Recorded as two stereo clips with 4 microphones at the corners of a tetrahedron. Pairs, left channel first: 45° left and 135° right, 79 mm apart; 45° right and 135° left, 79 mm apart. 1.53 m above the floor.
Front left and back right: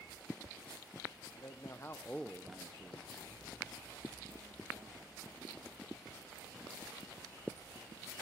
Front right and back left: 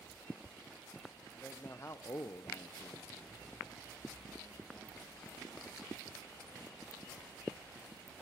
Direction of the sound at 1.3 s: 20° left.